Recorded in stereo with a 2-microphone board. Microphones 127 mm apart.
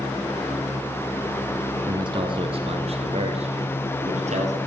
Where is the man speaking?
35° right (ahead or behind), 1.2 m; by 4.6 s 65° right (ahead or behind), 2.5 m.